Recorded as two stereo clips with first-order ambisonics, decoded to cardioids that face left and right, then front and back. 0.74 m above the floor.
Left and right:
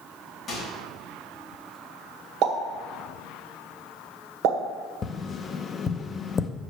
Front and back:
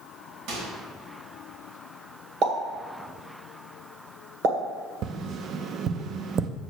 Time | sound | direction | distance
0.5 | a microwave | 160° left | 3 m
2.4 | a pop | 125° right | 1.6 m
5.0 | tapping | 145° left | 0.5 m